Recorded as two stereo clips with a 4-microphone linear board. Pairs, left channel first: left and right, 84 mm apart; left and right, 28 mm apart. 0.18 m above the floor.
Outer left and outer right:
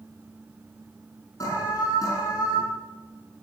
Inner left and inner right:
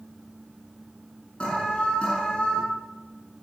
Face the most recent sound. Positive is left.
turn(degrees=40)  # may be behind; listen again after turning